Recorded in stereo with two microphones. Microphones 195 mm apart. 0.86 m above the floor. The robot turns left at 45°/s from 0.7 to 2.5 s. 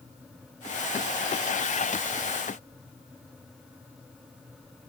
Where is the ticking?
No ticking in this recording.